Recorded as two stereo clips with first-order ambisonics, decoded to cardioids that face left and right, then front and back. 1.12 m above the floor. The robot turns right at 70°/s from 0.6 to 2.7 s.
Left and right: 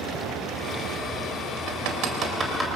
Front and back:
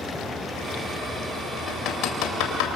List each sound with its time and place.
1.7 s hammering: 70° right, 3.5 m; by 2.7 s straight ahead, 3.5 m